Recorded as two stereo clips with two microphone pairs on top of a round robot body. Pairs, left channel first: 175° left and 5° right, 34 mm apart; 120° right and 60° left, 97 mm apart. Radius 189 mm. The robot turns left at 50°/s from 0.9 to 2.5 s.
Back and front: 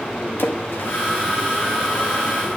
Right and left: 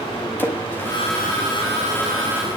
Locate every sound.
0.4 s a splash: 170° left, 1.4 m; by 1.0 s 165° left, 1.4 m